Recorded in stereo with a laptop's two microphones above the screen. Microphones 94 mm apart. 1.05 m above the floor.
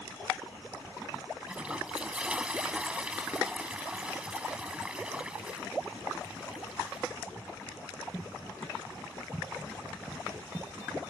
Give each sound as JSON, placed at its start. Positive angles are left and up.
{"t": 1.5, "sound": "a toilet flushing", "side_deg": -10}